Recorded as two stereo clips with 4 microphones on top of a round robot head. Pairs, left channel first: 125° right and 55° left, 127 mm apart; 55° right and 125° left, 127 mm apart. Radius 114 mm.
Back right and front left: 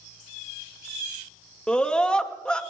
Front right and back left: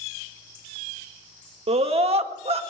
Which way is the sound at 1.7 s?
150° left.